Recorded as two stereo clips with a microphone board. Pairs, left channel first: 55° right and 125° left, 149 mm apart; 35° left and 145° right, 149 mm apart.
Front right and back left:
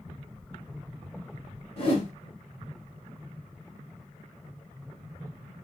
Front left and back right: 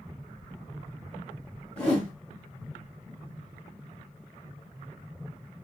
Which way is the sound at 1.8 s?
45° right.